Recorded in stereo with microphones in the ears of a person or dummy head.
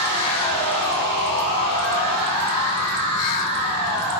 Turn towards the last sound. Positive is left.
turn(degrees=25)  # may be behind; listen again after turning